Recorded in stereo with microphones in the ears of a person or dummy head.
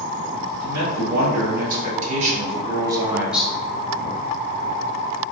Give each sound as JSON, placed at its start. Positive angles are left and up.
{"t": 0.6, "sound": "a man speaking", "side_deg": -70, "distance_m": 1.7}